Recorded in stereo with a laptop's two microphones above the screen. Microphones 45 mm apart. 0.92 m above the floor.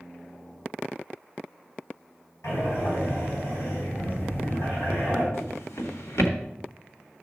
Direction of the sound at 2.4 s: 85° left.